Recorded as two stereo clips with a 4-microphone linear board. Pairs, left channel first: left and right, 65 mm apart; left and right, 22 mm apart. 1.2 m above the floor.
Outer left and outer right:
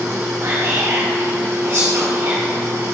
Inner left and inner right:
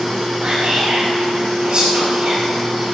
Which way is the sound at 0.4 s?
45° right (ahead or behind).